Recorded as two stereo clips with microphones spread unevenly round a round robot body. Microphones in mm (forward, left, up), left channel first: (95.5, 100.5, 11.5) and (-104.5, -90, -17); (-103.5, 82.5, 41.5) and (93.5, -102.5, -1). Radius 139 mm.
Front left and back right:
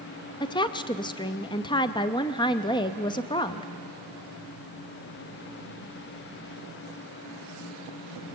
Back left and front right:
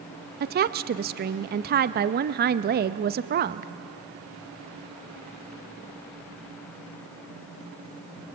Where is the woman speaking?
30° right, 0.6 m.